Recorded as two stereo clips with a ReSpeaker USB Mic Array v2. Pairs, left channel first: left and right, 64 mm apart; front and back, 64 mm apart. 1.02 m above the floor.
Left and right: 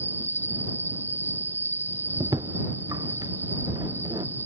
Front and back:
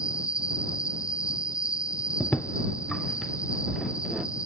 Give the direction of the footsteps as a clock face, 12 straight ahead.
2 o'clock.